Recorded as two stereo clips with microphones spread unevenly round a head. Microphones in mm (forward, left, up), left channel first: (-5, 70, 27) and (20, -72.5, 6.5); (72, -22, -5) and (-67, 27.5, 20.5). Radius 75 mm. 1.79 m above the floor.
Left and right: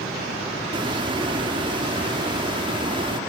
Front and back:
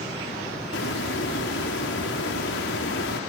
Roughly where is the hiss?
Ahead.